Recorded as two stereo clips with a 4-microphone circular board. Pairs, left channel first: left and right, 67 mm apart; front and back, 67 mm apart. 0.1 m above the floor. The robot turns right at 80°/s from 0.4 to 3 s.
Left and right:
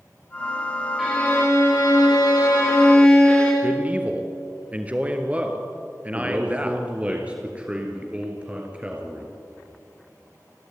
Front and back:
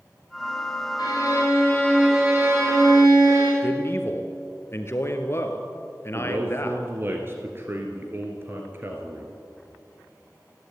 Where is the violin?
Straight ahead, 4.5 m; by 3.5 s 160° left, 4.5 m.